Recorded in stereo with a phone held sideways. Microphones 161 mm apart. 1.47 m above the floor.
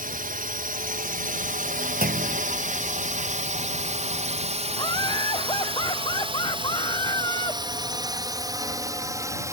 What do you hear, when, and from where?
0.0 s a drone: 60° right (ahead or behind); by 9.5 s 20° right (ahead or behind)
2.0 s a clunk: 65° right (ahead or behind)
4.7 s laughter: 30° left (ahead or behind)